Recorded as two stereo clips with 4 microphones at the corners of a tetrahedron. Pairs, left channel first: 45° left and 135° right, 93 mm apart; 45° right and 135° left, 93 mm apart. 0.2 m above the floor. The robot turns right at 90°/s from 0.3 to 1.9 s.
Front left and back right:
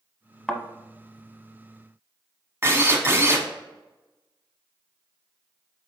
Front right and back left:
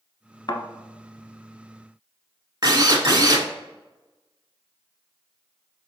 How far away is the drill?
About 0.7 m.